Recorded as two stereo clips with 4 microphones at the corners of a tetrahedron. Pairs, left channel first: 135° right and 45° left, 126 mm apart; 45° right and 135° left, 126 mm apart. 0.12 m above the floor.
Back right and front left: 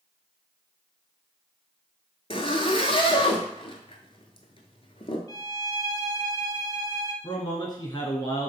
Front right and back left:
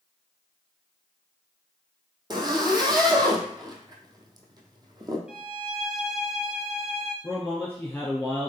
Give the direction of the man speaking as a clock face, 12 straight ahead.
4 o'clock.